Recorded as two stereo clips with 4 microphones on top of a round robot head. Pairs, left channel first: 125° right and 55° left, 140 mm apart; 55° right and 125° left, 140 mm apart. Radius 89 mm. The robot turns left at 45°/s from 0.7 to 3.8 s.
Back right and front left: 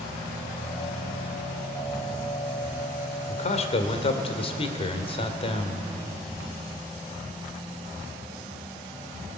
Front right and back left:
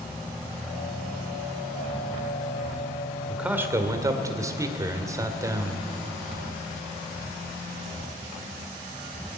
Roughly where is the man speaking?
Behind right.